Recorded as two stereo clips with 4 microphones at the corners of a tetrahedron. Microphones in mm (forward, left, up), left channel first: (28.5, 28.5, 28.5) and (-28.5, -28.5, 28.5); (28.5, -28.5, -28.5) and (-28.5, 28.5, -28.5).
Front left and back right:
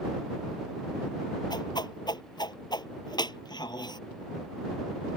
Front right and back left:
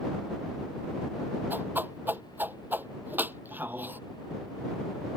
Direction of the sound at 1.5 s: 70° left.